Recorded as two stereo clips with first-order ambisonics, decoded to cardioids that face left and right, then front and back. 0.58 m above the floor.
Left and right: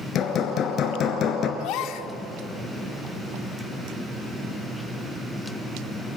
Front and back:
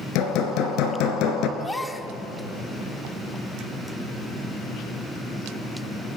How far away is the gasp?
About 1.1 m.